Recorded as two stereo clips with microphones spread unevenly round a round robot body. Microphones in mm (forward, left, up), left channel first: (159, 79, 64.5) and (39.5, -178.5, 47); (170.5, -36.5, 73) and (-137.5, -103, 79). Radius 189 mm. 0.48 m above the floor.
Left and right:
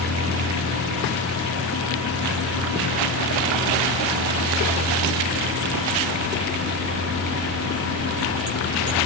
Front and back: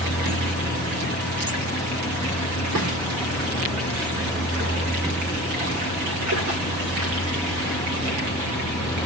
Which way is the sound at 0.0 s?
70° right.